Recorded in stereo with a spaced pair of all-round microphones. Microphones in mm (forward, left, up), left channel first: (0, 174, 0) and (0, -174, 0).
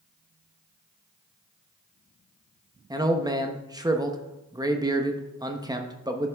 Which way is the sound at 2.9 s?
10° right (ahead or behind).